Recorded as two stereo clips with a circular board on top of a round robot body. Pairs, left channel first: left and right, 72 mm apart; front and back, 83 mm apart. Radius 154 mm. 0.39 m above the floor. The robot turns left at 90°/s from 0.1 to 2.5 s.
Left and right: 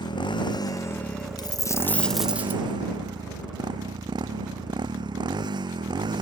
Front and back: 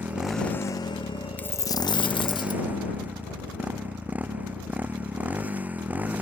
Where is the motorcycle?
110° left; by 6.2 s 105° right.